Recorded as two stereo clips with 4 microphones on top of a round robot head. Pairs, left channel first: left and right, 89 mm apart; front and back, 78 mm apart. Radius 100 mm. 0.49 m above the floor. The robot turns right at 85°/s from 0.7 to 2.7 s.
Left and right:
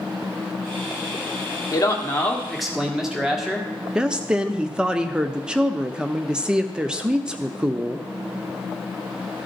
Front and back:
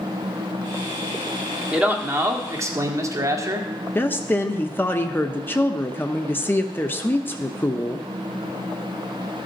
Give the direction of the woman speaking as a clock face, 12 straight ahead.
1 o'clock.